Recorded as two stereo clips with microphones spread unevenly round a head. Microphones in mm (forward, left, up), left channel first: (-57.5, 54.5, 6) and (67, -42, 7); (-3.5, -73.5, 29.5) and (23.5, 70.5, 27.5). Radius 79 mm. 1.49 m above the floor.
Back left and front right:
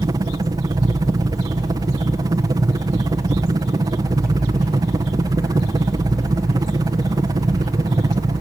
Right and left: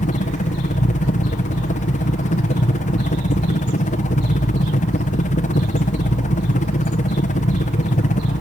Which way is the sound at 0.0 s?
100° right.